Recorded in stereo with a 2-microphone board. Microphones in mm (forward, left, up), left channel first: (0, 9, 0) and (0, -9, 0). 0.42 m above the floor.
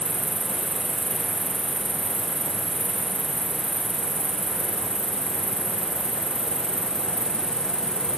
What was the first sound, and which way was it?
An insect, 50° left (ahead or behind).